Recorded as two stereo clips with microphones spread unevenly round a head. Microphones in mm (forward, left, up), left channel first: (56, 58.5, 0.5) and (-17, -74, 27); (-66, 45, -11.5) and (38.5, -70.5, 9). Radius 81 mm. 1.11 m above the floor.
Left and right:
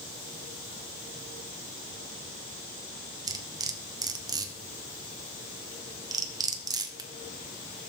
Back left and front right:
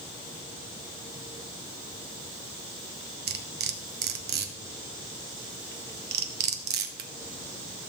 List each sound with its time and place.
3.3 s cutlery clinking: 60° right, 0.9 m